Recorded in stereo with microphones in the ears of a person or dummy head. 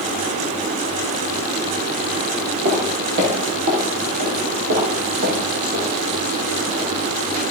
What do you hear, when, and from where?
2.6 s footsteps: 40° right (ahead or behind), 1.9 m; by 7.4 s 50° right (ahead or behind), 7.5 m